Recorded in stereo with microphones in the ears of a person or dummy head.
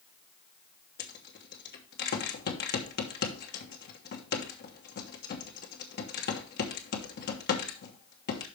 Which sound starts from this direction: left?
A rattle, at 1.0 s.